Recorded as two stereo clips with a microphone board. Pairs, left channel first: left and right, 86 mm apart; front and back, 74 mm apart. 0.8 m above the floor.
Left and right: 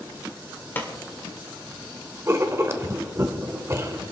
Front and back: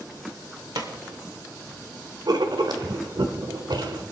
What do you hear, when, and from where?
0.8 s a pop: 155° left, 2 m
2.3 s writing: 150° right, 1.2 m